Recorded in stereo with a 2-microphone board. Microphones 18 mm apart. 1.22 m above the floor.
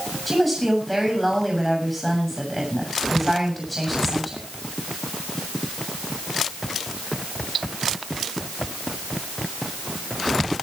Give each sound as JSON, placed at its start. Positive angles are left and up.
{"t": 0.3, "sound": "a woman speaking", "side_deg": 0, "distance_m": 7.0}